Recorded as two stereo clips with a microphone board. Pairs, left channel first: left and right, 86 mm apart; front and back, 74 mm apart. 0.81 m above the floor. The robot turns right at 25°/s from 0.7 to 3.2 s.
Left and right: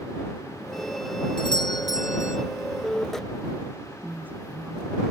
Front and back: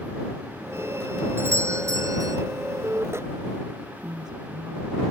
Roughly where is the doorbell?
Behind left.